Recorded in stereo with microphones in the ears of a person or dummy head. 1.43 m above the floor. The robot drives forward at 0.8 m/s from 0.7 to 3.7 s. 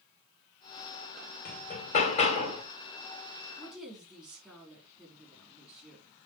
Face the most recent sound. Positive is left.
turn(degrees=-5)  # may be behind; listen again after turning